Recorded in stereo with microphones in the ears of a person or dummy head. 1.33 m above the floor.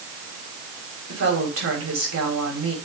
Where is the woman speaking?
75° right (ahead or behind), 5 m.